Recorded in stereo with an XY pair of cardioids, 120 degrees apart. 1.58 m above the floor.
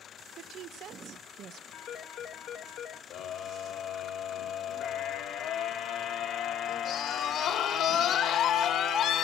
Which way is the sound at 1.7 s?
70° left.